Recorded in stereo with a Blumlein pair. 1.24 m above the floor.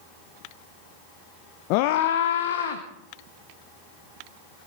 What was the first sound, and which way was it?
A scream, 40° left.